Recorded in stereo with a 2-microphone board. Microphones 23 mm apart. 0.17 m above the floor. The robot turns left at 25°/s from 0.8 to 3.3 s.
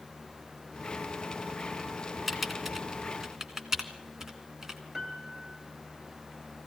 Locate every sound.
2.3 s typing on a keyboard: 5° right (ahead or behind), 1.5 m; by 4.8 s 25° right (ahead or behind), 1.5 m
4.9 s a piano: 15° right (ahead or behind), 2.5 m